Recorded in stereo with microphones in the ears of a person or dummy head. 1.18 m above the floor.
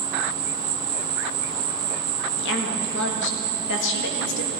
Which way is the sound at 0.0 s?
20° right (ahead or behind).